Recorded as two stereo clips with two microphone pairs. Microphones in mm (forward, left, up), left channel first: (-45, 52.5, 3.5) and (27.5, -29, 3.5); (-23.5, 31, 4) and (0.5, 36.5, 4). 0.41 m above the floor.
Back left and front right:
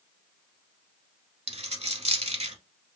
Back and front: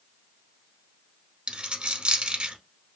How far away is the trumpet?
I don't hear a trumpet.